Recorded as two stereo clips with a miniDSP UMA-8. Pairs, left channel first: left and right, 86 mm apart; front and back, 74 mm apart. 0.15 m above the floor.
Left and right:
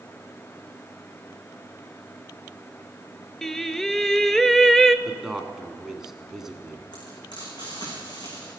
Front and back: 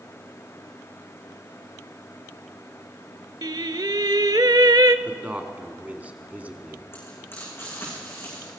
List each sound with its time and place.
3.4 s singing: 175° left, 0.5 m
5.0 s a man speaking: 165° right, 1.2 m
6.9 s frying: 60° left, 7 m